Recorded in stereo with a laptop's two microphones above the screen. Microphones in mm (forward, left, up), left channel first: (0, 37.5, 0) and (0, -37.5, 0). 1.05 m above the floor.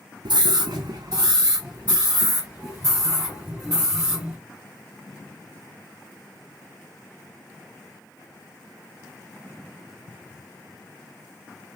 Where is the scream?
70° right (ahead or behind), 0.5 m; by 4.4 s 10° right (ahead or behind), 2.5 m.